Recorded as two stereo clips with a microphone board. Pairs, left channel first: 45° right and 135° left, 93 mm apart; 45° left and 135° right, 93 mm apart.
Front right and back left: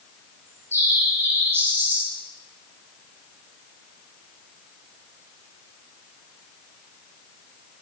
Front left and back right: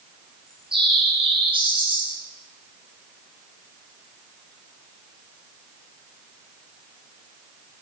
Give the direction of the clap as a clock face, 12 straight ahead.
I don't hear a clap.